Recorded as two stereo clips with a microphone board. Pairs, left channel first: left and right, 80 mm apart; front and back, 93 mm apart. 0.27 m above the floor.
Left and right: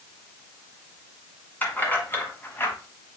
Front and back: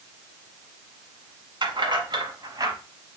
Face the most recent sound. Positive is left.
turn(degrees=145)